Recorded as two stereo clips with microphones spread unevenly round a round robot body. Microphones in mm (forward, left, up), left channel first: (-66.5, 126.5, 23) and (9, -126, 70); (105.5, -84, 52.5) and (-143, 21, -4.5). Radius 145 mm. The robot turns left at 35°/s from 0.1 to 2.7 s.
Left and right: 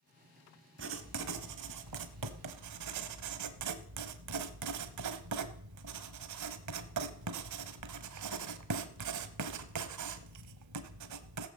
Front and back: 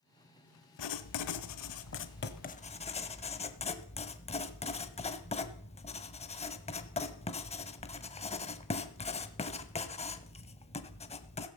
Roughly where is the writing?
Ahead right.